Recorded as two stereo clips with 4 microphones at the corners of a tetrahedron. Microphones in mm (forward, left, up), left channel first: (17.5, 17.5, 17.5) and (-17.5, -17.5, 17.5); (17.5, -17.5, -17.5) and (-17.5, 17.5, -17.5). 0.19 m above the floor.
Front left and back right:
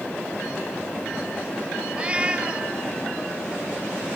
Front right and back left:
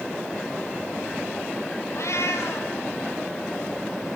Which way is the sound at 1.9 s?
70° right.